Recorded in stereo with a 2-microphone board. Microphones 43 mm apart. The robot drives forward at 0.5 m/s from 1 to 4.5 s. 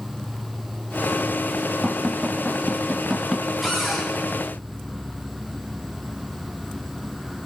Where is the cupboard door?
Centre (ahead or behind), 9 m.